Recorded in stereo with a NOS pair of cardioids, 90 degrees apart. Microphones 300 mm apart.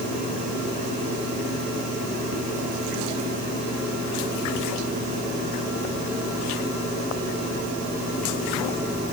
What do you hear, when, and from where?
Only background noise.